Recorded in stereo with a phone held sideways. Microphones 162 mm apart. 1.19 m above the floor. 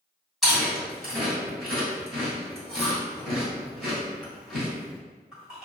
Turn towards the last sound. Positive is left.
turn(degrees=0)  # may be behind; listen again after turning